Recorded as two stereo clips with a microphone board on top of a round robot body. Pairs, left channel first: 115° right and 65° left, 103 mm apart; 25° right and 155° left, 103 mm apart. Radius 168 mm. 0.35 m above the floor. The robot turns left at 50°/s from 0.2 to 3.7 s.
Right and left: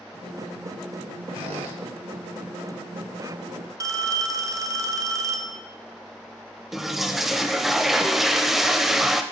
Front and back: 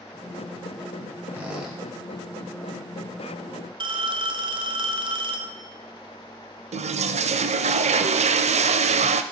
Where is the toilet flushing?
155° left, 0.5 m.